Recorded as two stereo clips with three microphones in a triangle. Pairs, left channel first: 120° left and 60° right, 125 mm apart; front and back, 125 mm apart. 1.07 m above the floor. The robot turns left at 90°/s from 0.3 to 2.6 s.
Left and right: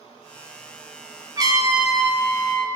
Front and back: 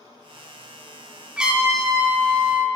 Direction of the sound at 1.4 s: 95° right.